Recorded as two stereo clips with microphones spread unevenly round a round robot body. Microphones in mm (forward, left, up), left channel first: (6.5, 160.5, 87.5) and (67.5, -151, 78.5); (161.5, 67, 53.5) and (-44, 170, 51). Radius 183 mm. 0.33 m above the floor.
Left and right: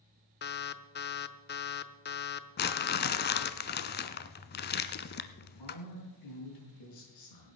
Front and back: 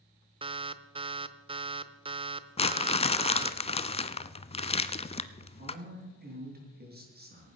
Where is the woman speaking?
105° left, 6 m.